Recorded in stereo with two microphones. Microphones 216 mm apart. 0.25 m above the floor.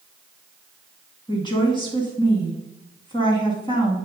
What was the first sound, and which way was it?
A woman speaking, 20° left (ahead or behind).